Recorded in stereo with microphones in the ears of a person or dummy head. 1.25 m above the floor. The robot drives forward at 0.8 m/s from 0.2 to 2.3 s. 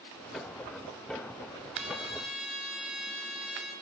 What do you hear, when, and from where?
1.7 s a trumpet: centre (ahead or behind), 5 m